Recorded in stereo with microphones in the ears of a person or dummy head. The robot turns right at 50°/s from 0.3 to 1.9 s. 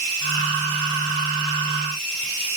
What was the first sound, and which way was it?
Only background noise.